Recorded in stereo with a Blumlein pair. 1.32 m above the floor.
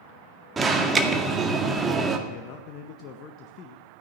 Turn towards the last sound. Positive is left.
turn(degrees=35)